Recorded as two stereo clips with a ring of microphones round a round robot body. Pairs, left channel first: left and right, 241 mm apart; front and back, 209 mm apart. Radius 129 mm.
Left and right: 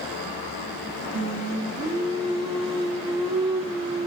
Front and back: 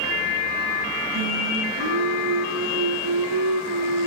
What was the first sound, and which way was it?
Singing, 160° right.